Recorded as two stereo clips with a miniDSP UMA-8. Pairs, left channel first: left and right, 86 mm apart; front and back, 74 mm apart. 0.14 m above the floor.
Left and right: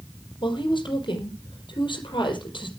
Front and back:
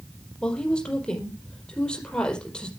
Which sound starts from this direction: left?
A woman speaking, at 0.4 s.